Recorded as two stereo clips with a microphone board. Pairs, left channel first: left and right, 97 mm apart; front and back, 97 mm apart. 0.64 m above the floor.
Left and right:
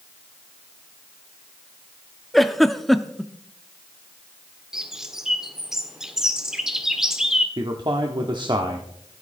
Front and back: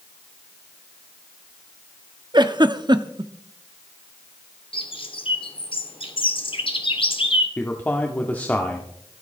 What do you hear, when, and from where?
2.3 s a giggle: straight behind, 0.8 m
4.7 s a bird: 5° right, 1.5 m
7.6 s a man speaking: 70° right, 1.5 m